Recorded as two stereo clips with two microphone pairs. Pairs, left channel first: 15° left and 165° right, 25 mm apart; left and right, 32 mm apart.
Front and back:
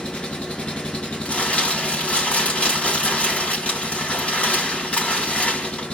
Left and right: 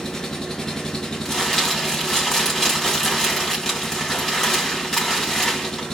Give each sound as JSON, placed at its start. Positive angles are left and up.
{"t": 0.0, "sound": "an engine running", "azimuth_deg": 20, "distance_m": 0.8}
{"t": 1.2, "sound": "crumpling", "azimuth_deg": 10, "distance_m": 3.0}